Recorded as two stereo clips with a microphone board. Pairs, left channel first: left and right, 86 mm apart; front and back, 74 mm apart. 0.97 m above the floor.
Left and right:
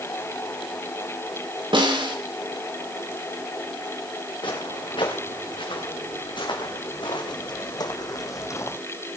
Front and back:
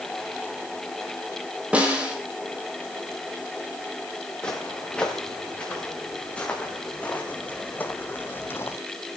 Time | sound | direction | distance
1.7 | a snare drum | 110° right | 4.5 m
4.4 | footsteps | 75° left | 5.5 m